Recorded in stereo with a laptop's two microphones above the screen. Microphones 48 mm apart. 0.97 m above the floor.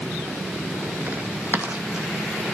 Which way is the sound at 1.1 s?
40° right (ahead or behind).